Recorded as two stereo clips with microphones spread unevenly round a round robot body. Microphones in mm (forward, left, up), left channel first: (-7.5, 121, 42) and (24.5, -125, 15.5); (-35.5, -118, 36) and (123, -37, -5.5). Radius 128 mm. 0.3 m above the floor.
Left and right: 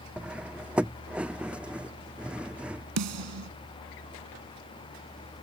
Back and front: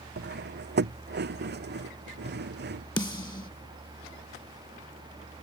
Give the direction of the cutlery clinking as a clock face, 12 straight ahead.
12 o'clock.